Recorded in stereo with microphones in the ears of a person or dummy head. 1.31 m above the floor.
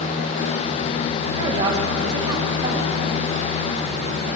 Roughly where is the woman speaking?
Centre.